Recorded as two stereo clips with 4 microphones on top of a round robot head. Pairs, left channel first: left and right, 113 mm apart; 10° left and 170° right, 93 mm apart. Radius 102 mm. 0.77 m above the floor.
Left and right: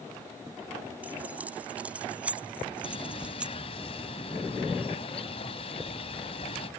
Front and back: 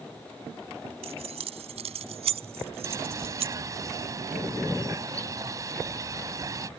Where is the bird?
135° left.